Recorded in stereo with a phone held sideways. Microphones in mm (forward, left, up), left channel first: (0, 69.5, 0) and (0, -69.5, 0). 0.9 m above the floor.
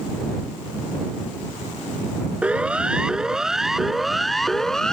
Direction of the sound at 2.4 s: 10° right (ahead or behind).